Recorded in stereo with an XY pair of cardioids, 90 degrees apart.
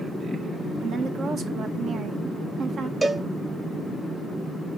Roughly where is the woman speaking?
Right.